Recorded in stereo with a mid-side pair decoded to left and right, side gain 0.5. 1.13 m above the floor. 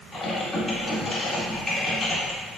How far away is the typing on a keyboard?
About 1.8 m.